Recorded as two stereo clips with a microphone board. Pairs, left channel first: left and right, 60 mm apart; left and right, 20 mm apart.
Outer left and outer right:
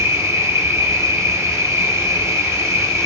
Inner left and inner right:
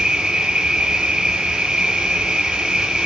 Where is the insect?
60° right (ahead or behind), 2.5 m.